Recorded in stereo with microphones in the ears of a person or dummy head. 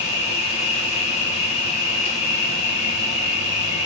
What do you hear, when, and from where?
0.0 s an insect: 35° left (ahead or behind), 2.5 m